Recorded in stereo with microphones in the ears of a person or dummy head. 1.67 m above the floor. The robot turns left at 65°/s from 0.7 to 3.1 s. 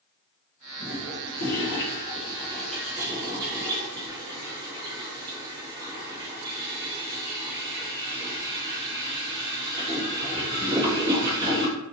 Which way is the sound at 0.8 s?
50° left (ahead or behind).